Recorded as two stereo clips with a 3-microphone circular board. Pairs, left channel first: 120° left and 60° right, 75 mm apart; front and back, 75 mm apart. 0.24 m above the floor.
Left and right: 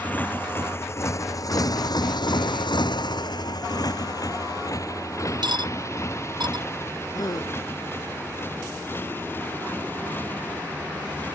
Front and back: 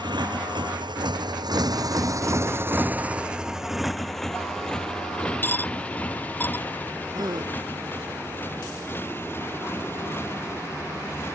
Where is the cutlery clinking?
65° right.